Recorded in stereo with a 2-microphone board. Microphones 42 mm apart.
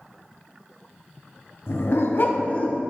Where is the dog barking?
80° left, 0.9 m; by 2.8 s 25° left (ahead or behind), 0.9 m.